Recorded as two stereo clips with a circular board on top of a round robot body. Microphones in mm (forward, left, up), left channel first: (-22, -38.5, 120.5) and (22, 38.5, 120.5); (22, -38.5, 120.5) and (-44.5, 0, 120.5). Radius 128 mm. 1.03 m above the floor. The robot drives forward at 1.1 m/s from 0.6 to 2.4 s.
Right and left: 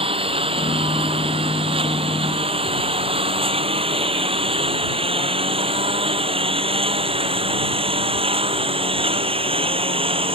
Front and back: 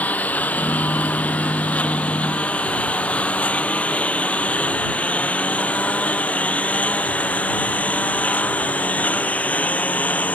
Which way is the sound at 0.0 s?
40° left.